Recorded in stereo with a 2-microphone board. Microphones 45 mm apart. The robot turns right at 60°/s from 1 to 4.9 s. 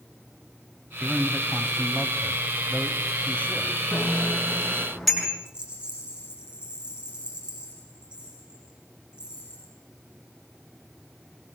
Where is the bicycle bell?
65° left (ahead or behind), 8 m; by 5.3 s 5° left (ahead or behind), 8 m.